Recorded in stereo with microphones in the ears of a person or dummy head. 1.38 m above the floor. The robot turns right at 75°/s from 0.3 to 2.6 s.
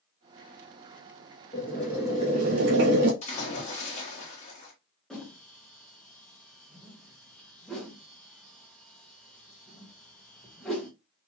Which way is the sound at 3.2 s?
30° left (ahead or behind).